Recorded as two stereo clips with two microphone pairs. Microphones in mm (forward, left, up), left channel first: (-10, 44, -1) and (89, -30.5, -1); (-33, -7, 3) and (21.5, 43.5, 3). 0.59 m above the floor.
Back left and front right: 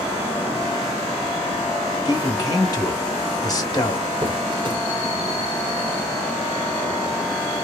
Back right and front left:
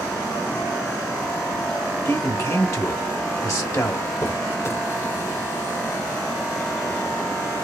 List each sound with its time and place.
2.0 s a man speaking: 165° right, 1.2 m
4.2 s a squeak: 85° right, 0.7 m